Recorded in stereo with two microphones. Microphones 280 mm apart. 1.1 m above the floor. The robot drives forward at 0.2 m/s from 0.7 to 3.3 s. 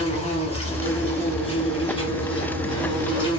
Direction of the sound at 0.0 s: 25° left (ahead or behind).